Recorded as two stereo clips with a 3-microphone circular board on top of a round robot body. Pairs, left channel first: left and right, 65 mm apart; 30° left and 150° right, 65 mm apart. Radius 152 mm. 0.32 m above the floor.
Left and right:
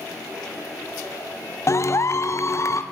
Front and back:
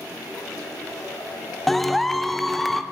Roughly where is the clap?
Behind left.